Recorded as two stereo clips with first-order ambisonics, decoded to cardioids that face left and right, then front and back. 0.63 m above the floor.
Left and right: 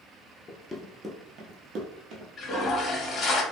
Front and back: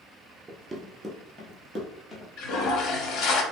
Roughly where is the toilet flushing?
Ahead left.